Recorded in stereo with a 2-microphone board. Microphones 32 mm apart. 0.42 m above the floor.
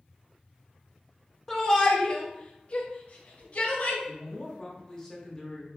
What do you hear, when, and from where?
1.5 s a shout: 10° left (ahead or behind), 0.9 m; by 4.0 s 45° left (ahead or behind), 1.9 m
4.1 s a man speaking: 20° left (ahead or behind), 1.1 m